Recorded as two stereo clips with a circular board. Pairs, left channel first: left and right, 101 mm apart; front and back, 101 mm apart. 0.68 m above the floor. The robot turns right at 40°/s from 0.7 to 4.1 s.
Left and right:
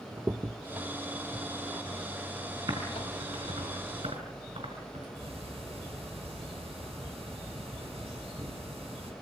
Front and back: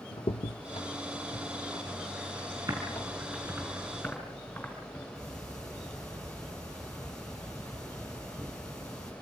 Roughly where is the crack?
Ahead.